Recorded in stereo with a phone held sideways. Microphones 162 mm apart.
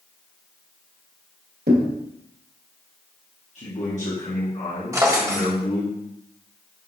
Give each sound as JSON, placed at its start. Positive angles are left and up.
{"t": 1.7, "sound": "a thud", "side_deg": -80, "distance_m": 1.6}
{"t": 3.5, "sound": "a man speaking", "side_deg": 45, "distance_m": 1.7}
{"t": 4.9, "sound": "a drawer", "side_deg": -20, "distance_m": 1.1}